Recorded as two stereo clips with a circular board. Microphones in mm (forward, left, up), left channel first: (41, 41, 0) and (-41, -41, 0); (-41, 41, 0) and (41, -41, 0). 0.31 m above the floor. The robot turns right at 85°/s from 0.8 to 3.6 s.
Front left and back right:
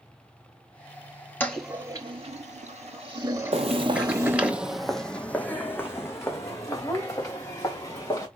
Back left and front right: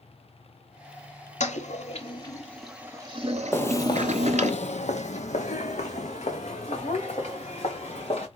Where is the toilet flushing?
120° left, 0.9 m; by 4.5 s 55° right, 0.9 m.